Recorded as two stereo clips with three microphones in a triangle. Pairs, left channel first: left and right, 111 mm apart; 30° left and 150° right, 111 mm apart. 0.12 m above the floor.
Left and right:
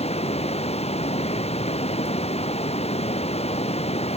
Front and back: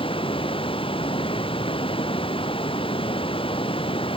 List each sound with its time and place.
0.0 s running water: 65° left